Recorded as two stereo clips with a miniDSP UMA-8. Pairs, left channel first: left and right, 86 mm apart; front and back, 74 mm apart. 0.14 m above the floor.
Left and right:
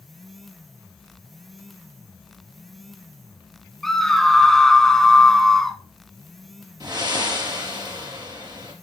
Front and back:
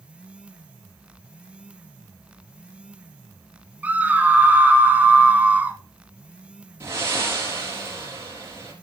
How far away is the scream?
About 1.0 m.